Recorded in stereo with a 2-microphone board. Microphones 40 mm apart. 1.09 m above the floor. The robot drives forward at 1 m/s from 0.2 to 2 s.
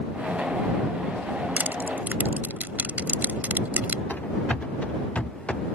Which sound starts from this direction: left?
Running footsteps, at 4.1 s.